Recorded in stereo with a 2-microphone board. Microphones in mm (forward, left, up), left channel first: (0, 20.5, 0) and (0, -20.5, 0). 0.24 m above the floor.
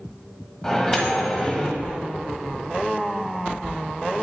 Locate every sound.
0.6 s a microwave: 10° left (ahead or behind), 1.2 m